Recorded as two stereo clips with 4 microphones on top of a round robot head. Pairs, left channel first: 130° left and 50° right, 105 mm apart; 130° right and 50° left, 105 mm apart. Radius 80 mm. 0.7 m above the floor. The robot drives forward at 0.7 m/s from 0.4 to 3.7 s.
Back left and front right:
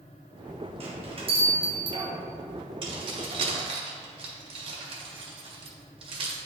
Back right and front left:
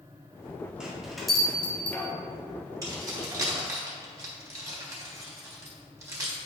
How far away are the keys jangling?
About 2.5 m.